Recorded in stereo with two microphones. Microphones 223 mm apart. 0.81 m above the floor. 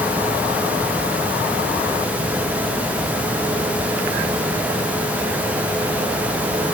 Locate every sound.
Only background noise.